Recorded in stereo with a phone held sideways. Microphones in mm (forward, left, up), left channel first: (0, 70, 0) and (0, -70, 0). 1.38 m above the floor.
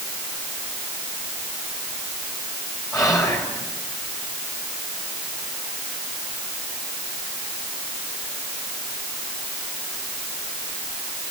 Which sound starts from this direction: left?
Whispering, at 2.9 s.